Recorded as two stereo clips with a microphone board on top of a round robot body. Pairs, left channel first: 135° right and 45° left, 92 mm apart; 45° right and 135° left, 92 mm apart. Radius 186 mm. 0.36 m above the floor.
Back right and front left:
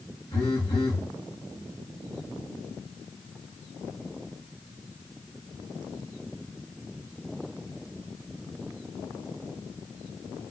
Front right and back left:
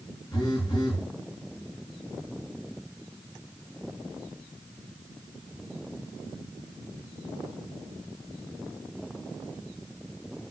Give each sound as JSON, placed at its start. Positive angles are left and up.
{"t": 0.3, "sound": "a phone buzzing", "azimuth_deg": -95, "distance_m": 4.5}